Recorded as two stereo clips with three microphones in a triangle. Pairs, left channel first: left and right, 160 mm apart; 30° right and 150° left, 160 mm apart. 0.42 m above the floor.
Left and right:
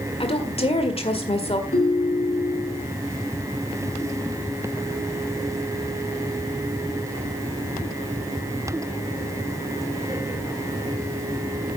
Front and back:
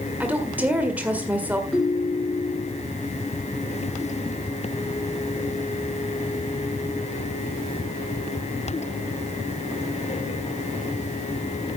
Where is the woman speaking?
75° left, 1.7 m.